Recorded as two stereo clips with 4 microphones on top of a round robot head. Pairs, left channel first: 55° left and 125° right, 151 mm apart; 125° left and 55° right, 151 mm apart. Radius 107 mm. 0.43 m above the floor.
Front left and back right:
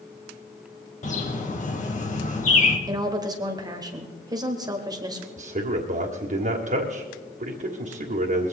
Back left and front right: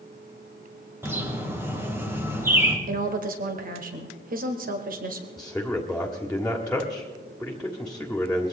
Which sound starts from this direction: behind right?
A man speaking, at 5.4 s.